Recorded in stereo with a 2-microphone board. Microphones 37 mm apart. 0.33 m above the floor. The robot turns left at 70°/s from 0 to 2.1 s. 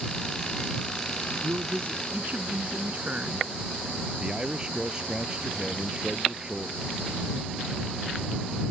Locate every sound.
1.4 s a man speaking: 85° right; by 3.5 s 135° right
4.2 s a man speaking: 25° right (ahead or behind)